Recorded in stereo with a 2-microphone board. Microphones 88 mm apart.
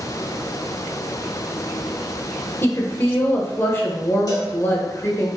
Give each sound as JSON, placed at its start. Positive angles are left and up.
{"t": 2.6, "sound": "a woman speaking", "side_deg": 25, "distance_m": 1.1}
{"t": 4.3, "sound": "a cowbell", "side_deg": 45, "distance_m": 2.0}